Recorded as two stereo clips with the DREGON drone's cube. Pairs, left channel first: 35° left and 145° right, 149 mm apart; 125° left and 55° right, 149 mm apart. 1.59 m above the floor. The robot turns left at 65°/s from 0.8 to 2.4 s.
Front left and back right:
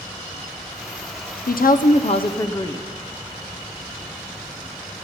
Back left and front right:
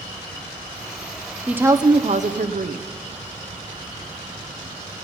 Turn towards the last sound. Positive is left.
turn(degrees=-30)